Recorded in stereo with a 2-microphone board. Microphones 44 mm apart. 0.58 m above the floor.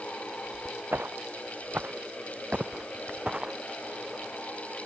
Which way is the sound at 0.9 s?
55° right (ahead or behind).